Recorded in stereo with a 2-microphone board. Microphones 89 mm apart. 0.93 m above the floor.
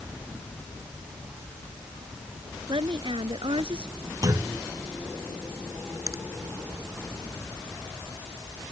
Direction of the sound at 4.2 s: 45° right (ahead or behind).